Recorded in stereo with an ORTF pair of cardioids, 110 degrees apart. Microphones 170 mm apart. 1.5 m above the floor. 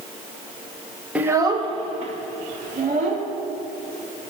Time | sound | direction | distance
1.1 | a child speaking | 5° right | 1.0 m